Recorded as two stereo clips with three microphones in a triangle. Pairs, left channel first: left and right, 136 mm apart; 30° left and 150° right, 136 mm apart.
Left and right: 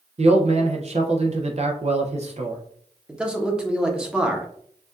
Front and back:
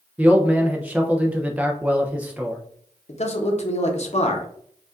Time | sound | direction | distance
0.2 | a man speaking | 70° right | 0.6 m
3.1 | a man speaking | 5° right | 0.8 m